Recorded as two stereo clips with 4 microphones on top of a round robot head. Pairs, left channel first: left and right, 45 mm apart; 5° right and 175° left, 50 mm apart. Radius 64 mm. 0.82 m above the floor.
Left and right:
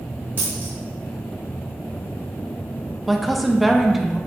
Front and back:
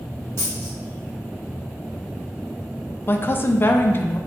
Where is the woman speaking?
5° right, 0.5 m.